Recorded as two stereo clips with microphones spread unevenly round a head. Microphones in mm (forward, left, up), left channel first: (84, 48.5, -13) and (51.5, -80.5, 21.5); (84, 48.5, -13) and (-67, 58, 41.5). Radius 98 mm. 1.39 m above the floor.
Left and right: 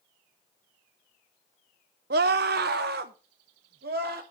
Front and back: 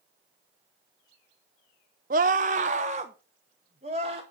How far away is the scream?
About 0.7 m.